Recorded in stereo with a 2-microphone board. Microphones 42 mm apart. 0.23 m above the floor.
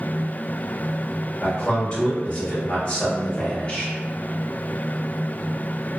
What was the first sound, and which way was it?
A man speaking, 30° left (ahead or behind).